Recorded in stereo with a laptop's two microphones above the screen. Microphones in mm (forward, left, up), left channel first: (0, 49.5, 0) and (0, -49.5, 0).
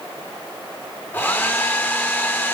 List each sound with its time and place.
1.1 s a hair dryer: 20° left (ahead or behind), 0.6 m